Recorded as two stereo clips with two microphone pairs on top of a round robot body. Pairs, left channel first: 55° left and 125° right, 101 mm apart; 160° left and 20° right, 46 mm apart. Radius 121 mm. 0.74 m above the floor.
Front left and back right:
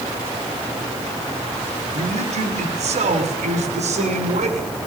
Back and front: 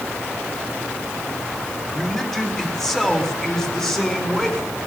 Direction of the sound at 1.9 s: 120° right.